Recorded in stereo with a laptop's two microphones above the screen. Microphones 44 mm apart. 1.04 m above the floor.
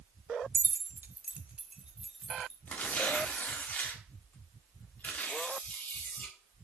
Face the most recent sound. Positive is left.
turn(degrees=40)  # may be behind; listen again after turning